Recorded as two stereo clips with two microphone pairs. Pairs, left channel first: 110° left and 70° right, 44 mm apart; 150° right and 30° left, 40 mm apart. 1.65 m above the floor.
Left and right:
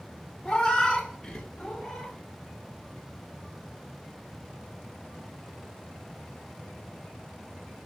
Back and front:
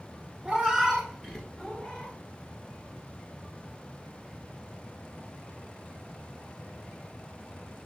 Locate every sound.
0.5 s a cat meowing: 70° left, 1.2 m; by 2.1 s straight behind, 1.3 m